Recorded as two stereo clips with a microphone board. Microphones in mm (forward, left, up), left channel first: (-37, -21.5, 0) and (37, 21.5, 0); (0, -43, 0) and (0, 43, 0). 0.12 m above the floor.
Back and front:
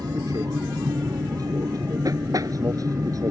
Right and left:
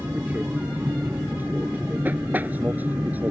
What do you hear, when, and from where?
0.0 s an aircraft: 30° left